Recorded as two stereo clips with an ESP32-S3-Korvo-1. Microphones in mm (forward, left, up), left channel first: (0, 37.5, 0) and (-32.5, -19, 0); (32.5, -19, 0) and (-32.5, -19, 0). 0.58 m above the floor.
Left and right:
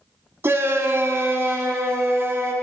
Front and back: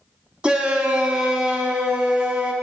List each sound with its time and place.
0.4 s a shout: 110° right, 0.7 m